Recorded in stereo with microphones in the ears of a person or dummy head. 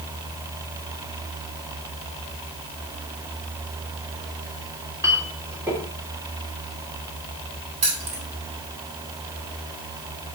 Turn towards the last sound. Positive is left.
turn(degrees=-35)  # may be behind; listen again after turning